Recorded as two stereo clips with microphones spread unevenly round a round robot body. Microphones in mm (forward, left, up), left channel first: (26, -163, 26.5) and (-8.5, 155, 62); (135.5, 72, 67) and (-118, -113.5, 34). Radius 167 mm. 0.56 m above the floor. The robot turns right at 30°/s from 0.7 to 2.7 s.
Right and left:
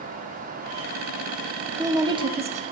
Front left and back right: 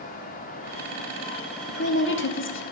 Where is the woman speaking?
10° left, 0.9 m; by 2.6 s 35° left, 0.9 m.